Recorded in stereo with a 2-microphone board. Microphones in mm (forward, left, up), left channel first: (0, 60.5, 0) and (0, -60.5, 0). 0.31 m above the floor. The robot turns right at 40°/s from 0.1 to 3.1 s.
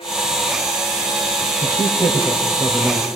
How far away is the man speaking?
About 1.7 m.